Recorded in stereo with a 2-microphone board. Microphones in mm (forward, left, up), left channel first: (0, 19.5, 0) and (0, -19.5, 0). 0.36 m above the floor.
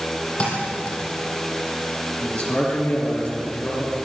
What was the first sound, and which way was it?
A thud, 30° left (ahead or behind).